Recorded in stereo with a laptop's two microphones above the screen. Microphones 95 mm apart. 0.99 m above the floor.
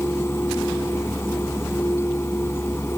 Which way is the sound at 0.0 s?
25° left (ahead or behind).